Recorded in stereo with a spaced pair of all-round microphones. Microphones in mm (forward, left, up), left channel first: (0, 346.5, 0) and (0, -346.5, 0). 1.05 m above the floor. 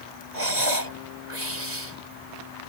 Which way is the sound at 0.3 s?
85° right.